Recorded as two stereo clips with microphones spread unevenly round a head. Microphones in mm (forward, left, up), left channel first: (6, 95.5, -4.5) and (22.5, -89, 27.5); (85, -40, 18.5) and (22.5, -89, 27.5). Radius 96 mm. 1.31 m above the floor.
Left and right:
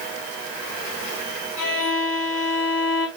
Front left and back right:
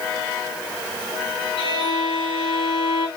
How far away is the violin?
About 4.5 m.